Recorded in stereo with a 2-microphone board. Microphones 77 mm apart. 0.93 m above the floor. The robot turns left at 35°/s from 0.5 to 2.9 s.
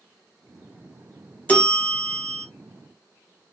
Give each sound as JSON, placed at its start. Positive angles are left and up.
{"t": 1.5, "sound": "a bell", "azimuth_deg": 45, "distance_m": 1.0}